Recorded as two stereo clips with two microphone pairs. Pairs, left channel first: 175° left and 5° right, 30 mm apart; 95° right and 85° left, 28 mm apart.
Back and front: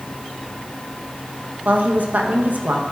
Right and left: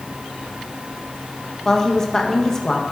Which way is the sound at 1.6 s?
25° right.